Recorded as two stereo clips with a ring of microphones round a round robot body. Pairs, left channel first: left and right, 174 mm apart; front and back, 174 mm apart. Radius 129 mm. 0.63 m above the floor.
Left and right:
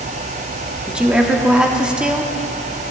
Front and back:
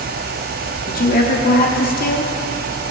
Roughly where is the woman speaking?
Ahead.